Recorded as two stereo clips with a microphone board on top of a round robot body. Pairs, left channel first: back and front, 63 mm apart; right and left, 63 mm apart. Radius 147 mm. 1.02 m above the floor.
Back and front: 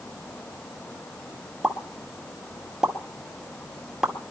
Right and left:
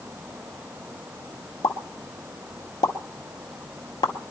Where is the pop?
85° right, 1.9 m.